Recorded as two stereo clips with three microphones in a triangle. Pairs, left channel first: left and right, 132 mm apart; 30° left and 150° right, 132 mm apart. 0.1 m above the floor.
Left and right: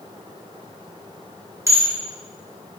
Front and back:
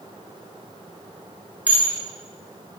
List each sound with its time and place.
1.7 s dishes clattering: 90° right, 0.8 m